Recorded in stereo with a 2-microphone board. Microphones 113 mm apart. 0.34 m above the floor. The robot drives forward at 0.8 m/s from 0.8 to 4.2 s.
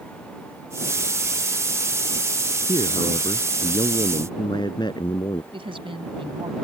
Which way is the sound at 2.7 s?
55° left (ahead or behind).